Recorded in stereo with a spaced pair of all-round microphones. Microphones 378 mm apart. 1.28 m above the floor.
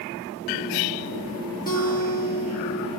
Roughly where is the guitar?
Left.